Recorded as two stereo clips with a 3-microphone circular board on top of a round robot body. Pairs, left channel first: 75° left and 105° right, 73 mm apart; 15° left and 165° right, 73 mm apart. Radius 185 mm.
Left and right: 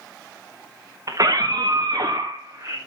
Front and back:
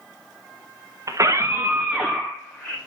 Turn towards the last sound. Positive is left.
turn(degrees=-50)